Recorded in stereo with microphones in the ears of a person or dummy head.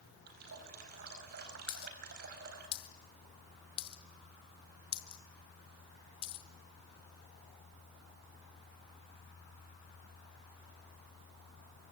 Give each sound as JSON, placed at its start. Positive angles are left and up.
{"t": 0.3, "sound": "a running tap", "side_deg": -55, "distance_m": 4.5}
{"t": 1.7, "sound": "a dropped coin", "side_deg": 25, "distance_m": 0.9}